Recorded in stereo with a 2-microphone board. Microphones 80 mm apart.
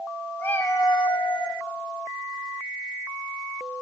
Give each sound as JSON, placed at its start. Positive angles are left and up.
{"t": 0.4, "sound": "a cat meowing", "side_deg": 25, "distance_m": 1.0}